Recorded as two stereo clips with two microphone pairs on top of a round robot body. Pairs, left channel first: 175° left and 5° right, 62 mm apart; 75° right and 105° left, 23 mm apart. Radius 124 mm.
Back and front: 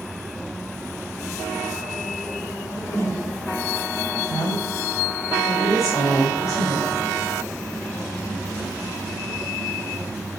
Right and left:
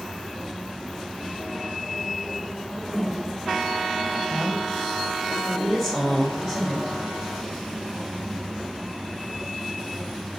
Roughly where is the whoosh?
Behind right.